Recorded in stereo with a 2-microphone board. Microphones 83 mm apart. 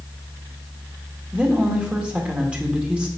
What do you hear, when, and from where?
1.3 s a woman speaking: 15° right (ahead or behind), 1.7 m